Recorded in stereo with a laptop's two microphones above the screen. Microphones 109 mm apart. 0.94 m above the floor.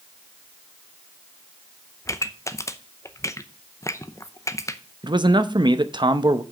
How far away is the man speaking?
About 0.6 m.